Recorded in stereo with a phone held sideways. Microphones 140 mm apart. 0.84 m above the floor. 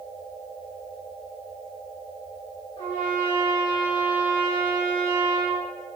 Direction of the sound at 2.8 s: 45° left (ahead or behind).